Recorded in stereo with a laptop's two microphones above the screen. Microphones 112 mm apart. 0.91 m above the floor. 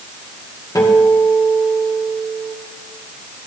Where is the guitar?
35° left (ahead or behind), 2 m.